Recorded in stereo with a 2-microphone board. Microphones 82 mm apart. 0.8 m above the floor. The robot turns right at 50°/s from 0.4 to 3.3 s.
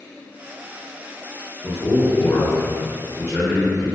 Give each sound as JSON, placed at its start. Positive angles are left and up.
{"t": 1.6, "sound": "a man speaking", "azimuth_deg": 70, "distance_m": 0.8}